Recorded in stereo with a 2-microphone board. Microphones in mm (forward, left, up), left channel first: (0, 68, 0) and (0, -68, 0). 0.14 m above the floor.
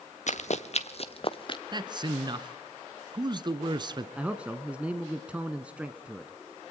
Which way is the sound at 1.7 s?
35° right (ahead or behind).